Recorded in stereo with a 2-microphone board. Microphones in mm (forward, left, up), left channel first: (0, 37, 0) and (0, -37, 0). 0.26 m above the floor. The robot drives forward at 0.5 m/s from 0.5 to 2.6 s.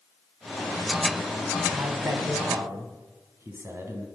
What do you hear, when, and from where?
1.7 s a man speaking: 40° right (ahead or behind), 1.5 m; by 4.1 s 35° right (ahead or behind), 1.7 m